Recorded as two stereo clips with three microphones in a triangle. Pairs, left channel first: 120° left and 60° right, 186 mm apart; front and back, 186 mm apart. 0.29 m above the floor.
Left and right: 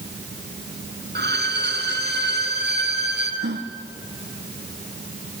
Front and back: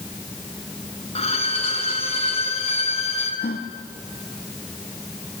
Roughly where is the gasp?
Ahead right.